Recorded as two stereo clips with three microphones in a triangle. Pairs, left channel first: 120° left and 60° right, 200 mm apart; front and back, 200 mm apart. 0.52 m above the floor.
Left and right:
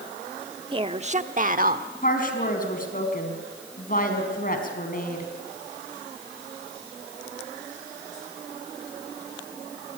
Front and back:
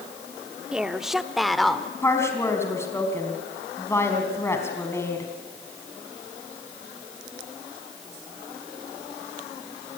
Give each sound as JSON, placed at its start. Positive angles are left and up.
{"t": 0.7, "sound": "a woman speaking", "azimuth_deg": -100, "distance_m": 0.9}
{"t": 2.0, "sound": "a woman speaking", "azimuth_deg": 75, "distance_m": 4.0}